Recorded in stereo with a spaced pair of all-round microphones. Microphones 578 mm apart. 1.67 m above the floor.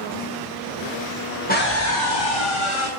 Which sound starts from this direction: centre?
A scream, at 1.5 s.